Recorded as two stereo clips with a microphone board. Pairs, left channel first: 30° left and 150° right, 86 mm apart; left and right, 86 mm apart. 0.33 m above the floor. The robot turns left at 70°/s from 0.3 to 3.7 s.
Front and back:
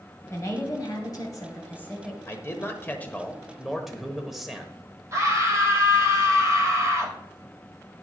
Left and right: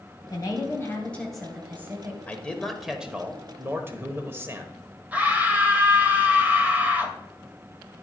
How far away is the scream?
About 1.7 m.